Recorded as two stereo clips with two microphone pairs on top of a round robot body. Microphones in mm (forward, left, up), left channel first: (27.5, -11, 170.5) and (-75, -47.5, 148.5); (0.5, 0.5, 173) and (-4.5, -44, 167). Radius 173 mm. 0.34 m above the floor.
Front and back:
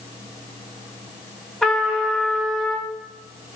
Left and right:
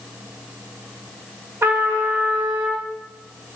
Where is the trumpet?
70° right, 2.5 m.